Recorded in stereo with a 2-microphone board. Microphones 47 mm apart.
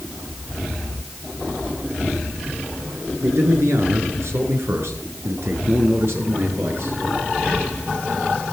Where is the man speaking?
70° right (ahead or behind), 6.5 m; by 7.0 s 55° right (ahead or behind), 7 m.